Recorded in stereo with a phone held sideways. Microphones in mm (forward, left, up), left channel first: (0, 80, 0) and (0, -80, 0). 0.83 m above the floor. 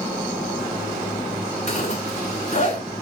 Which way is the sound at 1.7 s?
50° left (ahead or behind).